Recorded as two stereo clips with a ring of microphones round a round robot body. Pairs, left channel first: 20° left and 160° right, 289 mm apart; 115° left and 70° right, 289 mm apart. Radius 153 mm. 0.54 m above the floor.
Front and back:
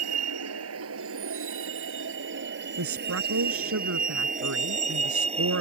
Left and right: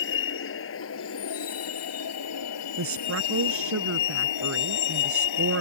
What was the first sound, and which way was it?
A vehicle, 165° left.